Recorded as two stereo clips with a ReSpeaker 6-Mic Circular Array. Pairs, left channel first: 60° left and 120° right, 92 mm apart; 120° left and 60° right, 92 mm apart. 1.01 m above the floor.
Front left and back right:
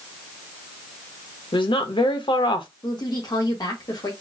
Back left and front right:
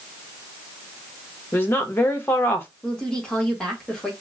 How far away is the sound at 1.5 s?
About 0.9 m.